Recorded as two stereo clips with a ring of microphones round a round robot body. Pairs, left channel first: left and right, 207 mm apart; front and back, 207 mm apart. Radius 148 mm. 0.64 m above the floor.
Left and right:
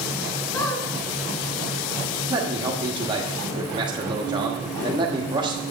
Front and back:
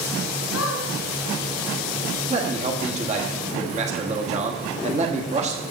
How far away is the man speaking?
About 1.3 m.